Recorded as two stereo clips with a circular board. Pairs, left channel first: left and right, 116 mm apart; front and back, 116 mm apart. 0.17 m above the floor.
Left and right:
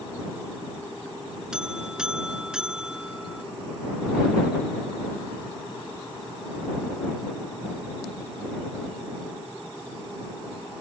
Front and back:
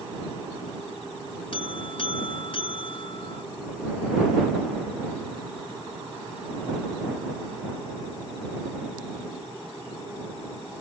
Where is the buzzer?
10° right.